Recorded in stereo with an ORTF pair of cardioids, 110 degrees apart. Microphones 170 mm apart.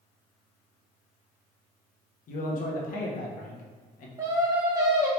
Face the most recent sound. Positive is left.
turn(degrees=-20)